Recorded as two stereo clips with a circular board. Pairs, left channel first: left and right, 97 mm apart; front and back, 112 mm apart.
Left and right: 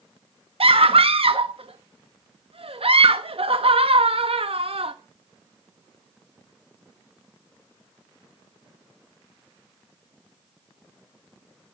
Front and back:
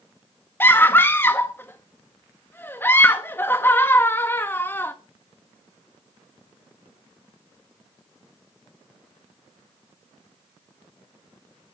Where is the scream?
70° right, 1.0 m.